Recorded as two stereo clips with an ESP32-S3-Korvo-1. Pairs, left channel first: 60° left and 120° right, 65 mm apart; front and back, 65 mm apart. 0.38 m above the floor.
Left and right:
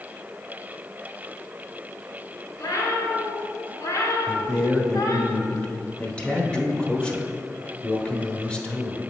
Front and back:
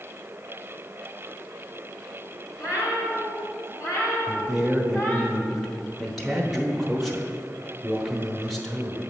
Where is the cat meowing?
25° left, 2 m; by 5.3 s 65° left, 1.1 m.